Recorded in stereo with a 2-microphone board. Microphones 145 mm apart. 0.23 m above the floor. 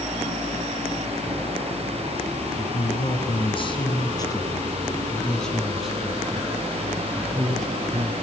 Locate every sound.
2.6 s a man speaking: 50° left (ahead or behind), 3 m; by 8.1 s 30° right (ahead or behind), 3 m